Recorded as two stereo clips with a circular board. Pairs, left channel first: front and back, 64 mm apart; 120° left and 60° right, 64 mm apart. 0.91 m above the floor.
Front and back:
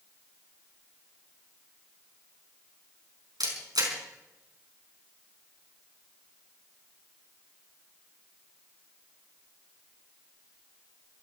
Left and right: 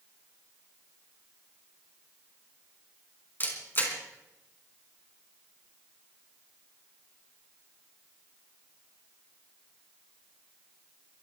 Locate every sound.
3.4 s a camera shutter: 175° left, 4.5 m